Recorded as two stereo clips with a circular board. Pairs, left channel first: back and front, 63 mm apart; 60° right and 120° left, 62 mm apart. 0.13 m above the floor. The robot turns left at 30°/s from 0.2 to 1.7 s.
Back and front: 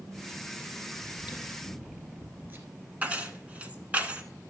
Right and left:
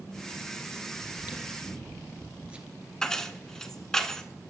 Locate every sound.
1.0 s chewing: 75° left, 1.8 m; by 2.7 s 55° left, 1.8 m
3.0 s keys jangling: 5° left, 0.8 m